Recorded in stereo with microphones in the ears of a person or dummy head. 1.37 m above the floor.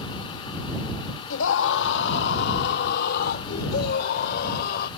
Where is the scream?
80° left; by 4.9 s 60° left (ahead or behind).